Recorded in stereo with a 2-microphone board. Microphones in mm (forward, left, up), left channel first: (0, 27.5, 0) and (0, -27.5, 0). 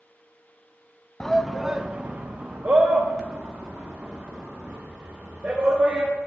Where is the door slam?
No door slam in this recording.